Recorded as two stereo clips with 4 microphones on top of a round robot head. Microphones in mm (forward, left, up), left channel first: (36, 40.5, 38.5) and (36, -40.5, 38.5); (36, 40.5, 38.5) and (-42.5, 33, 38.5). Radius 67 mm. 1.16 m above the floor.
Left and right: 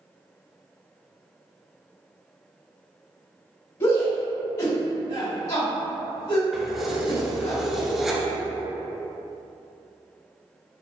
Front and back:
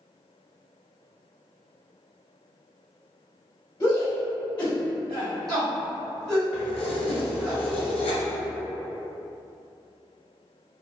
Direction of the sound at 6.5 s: Straight ahead.